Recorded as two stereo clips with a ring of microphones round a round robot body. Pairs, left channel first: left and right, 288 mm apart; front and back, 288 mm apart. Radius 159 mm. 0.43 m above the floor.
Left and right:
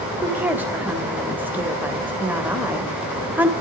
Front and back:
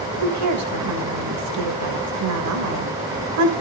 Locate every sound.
0.2 s a woman speaking: 175° right, 2 m